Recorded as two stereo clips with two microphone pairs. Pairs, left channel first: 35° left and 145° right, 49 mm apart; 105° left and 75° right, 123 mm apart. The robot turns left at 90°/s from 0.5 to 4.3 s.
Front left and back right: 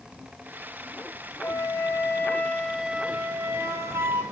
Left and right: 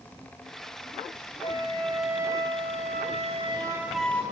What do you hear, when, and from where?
1.4 s a flute: 70° left, 1.1 m; by 4.2 s 175° left, 1.1 m